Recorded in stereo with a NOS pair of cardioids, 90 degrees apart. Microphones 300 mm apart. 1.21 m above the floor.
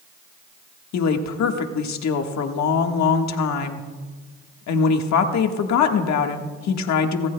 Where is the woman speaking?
70° left, 1.6 m.